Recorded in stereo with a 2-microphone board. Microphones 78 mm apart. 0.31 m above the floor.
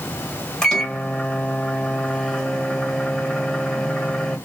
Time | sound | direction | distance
0.6 | a microwave | 10° left (ahead or behind) | 1.3 m